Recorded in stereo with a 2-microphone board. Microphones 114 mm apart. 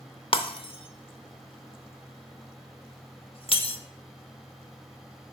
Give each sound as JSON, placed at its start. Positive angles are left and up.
{"t": 0.3, "sound": "breaking glass", "side_deg": 50, "distance_m": 0.7}